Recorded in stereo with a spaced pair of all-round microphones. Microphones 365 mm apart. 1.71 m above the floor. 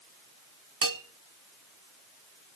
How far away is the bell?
About 0.8 m.